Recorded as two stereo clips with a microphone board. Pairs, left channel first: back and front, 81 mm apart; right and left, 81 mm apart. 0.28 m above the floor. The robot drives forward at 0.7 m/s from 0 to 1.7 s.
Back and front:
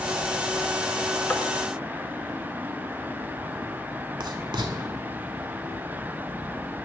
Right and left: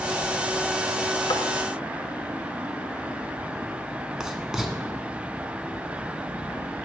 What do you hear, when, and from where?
1.3 s tapping: 110° right, 0.6 m; by 1.4 s 120° right, 0.6 m
4.2 s writing: 10° left, 0.9 m